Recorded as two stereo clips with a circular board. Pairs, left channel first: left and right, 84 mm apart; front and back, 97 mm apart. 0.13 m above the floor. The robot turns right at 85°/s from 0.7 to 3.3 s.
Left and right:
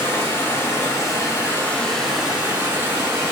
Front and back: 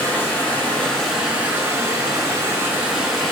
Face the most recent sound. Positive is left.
turn(degrees=-80)